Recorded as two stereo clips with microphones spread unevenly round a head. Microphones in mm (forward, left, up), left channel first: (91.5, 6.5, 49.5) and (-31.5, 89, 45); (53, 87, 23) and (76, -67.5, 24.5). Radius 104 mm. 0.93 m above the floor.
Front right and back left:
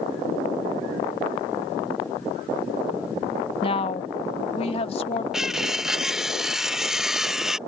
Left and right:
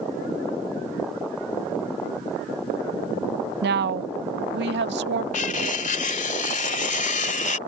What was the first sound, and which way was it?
A woman speaking, 90° right.